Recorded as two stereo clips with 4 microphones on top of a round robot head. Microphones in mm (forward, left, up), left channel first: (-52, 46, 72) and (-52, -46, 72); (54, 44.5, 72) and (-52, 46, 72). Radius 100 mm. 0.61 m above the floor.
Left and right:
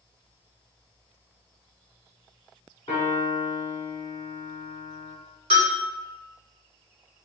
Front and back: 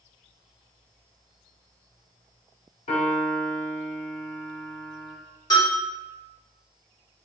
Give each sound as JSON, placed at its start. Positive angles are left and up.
{"t": 2.9, "sound": "a piano", "azimuth_deg": 25, "distance_m": 1.1}
{"t": 5.5, "sound": "a bell", "azimuth_deg": -60, "distance_m": 1.0}